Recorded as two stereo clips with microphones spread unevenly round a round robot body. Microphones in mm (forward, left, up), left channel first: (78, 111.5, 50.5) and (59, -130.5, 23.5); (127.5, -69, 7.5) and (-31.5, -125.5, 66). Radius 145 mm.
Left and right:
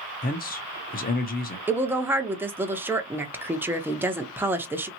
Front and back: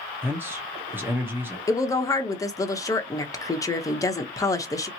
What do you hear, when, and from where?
0.2 s a man speaking: 95° left, 0.8 m
1.7 s a woman speaking: 20° right, 0.9 m